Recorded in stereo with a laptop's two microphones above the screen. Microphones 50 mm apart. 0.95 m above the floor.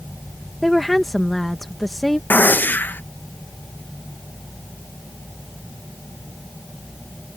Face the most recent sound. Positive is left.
turn(degrees=35)  # may be behind; listen again after turning